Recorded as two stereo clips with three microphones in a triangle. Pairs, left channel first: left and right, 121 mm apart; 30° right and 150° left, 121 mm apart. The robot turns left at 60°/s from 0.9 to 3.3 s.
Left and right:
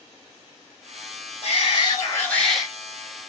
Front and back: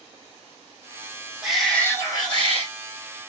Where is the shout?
65° left, 2.5 m; by 2.7 s 10° right, 2.5 m.